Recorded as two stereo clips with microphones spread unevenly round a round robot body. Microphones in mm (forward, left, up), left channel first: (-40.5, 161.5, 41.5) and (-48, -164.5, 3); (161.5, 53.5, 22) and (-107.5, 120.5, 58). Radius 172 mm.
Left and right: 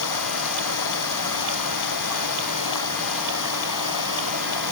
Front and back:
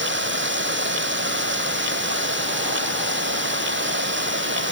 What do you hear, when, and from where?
0.0 s running water: 120° left